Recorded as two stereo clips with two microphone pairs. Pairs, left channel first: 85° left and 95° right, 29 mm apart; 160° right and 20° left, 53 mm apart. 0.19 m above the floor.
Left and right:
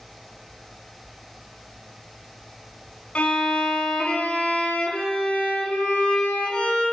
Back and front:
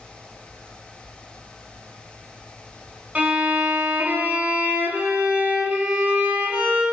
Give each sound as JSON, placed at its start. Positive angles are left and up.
{"t": 3.1, "sound": "a violin", "azimuth_deg": 65, "distance_m": 0.6}